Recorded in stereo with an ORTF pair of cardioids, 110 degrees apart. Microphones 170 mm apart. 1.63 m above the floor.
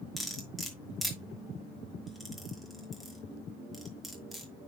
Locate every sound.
0.2 s cutlery clinking: straight ahead, 2.5 m